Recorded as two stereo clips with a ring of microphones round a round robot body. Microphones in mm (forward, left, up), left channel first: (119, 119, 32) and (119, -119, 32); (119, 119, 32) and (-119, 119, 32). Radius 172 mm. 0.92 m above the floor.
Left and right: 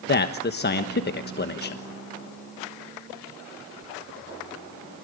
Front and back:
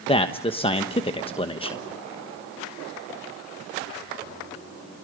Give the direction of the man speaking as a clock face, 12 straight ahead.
10 o'clock.